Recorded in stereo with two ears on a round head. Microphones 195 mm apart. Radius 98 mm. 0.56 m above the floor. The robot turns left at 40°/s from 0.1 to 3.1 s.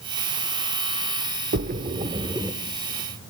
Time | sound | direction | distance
1.5 | a splash | 45° right (ahead or behind) | 0.6 m